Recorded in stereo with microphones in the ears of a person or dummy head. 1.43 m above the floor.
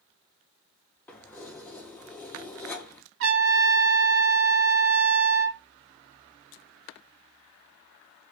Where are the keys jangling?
10° left (ahead or behind), 0.6 m.